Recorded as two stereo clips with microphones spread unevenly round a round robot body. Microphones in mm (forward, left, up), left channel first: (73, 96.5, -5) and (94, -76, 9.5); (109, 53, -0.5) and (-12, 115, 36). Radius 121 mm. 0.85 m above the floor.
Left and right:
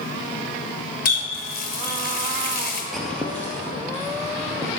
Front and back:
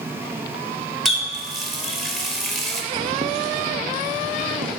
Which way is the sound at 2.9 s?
170° right.